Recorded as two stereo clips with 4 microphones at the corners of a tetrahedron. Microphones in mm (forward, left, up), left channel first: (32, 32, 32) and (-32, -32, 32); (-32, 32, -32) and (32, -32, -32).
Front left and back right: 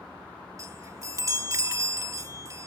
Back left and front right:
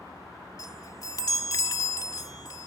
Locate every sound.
0.6 s a chime: 175° left